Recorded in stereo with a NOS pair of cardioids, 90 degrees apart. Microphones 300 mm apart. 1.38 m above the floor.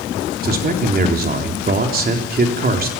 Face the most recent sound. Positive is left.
turn(degrees=-30)